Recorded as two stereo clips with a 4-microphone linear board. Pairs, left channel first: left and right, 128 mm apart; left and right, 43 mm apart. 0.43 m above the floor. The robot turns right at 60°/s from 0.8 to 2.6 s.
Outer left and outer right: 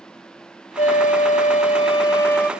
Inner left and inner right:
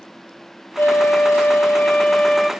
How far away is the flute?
About 1.0 m.